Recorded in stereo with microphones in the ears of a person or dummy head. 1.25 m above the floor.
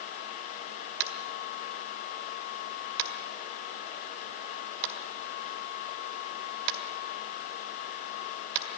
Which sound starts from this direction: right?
Tapping, at 1.0 s.